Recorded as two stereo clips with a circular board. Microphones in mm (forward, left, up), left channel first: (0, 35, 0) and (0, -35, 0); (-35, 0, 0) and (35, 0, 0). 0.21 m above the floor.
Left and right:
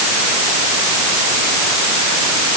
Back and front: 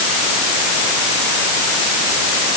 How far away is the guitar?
No guitar in this recording.